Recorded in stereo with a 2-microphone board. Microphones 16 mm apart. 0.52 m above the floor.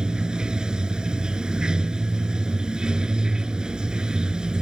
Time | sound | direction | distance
0.0 | running water | 60° right (ahead or behind) | ?